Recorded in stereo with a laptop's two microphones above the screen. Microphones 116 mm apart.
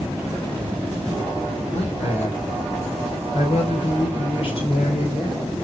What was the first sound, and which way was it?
A man speaking, 70° left (ahead or behind).